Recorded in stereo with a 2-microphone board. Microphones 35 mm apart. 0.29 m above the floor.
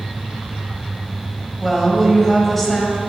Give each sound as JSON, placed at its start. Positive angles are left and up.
{"t": 1.6, "sound": "a woman speaking", "side_deg": 10, "distance_m": 1.8}